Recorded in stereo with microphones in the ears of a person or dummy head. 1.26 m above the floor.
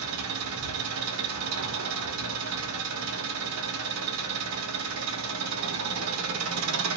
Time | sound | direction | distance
0.0 | an engine running | 80° right | 0.9 m